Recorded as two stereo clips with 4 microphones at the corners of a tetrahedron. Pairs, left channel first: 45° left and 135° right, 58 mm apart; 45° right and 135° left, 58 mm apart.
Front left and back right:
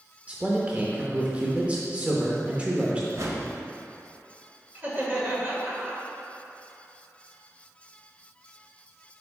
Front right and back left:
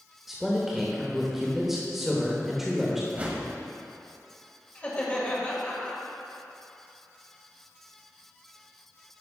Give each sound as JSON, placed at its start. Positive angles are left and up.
{"t": 0.3, "sound": "a man speaking", "azimuth_deg": -150, "distance_m": 0.9}
{"t": 3.1, "sound": "a whoosh", "azimuth_deg": -165, "distance_m": 1.0}
{"t": 4.8, "sound": "laughter", "azimuth_deg": -95, "distance_m": 1.8}